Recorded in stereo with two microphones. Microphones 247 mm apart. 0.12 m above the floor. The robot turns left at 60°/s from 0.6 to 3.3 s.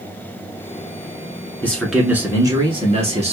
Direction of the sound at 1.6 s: 5° left (ahead or behind).